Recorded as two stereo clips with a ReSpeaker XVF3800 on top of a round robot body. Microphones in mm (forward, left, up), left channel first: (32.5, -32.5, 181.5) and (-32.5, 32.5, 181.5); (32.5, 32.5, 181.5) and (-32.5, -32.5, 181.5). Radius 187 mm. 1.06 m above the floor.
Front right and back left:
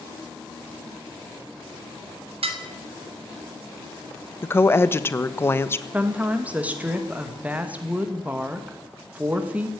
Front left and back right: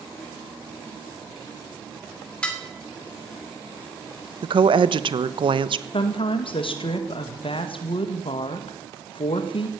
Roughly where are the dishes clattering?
Behind left.